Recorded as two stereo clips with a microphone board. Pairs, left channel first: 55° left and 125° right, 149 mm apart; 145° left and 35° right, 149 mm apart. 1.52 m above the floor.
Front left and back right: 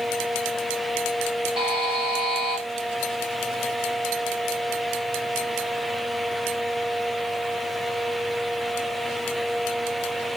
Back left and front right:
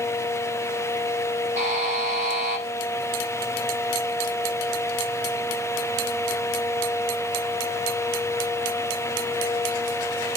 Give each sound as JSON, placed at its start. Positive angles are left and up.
{"t": 1.6, "sound": "a buzzer", "azimuth_deg": -70, "distance_m": 6.5}